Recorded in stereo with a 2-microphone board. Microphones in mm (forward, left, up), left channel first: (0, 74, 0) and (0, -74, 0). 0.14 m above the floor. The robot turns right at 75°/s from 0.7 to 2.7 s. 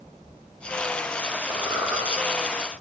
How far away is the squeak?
About 1.1 m.